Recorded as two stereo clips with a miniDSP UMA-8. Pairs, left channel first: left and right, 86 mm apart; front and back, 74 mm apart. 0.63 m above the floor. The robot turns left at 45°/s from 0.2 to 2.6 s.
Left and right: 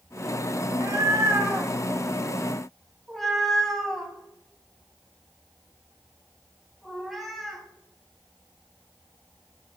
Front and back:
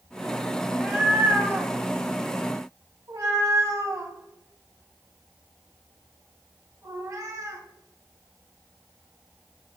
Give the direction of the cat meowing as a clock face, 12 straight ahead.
3 o'clock.